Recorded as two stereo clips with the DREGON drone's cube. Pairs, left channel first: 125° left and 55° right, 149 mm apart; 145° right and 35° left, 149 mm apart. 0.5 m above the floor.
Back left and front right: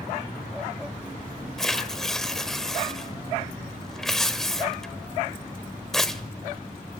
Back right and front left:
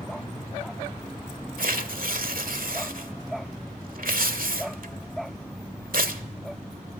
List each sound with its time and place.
1.6 s tearing paper: 40° left, 1.5 m